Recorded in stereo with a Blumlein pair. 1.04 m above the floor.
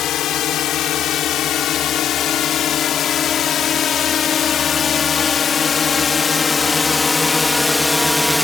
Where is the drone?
30° left; by 8.4 s 5° left.